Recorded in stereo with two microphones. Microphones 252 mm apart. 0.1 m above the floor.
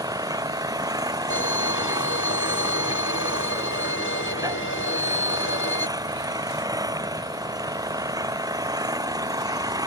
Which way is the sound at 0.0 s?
15° right (ahead or behind).